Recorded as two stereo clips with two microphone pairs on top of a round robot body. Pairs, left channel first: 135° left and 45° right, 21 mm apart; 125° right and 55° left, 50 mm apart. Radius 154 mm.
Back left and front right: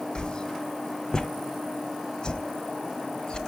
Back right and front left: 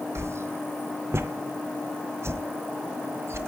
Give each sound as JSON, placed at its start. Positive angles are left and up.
{"t": 0.1, "sound": "a whoosh", "azimuth_deg": 85, "distance_m": 0.7}